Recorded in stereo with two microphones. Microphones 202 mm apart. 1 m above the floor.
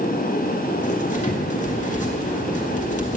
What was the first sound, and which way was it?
Writing, 40° left (ahead or behind).